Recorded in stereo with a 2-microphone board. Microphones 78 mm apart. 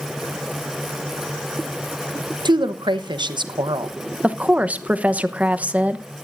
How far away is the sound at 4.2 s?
About 0.9 m.